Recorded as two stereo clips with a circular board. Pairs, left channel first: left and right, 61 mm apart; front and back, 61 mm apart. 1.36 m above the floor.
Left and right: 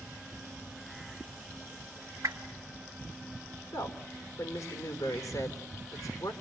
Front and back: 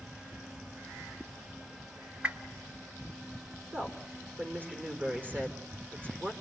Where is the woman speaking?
120° left, 4 m.